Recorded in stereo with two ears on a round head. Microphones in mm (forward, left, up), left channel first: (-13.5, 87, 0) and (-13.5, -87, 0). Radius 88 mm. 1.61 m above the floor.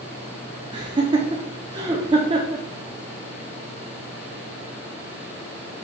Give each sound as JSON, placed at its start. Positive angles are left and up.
{"t": 0.7, "sound": "laughter", "side_deg": -25, "distance_m": 0.6}